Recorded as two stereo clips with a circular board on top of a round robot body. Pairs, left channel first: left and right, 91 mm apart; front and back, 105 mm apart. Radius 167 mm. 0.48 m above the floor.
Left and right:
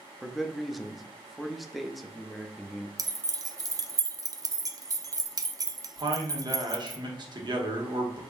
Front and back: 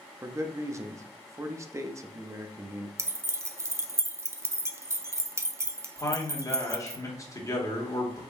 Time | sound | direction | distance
0.2 | a man speaking | straight behind | 0.7 m
3.0 | keys jangling | 125° right | 0.6 m
6.0 | a man speaking | 60° right | 1.4 m